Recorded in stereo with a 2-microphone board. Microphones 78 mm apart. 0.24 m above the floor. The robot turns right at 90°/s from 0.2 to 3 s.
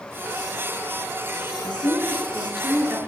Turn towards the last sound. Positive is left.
turn(degrees=-145)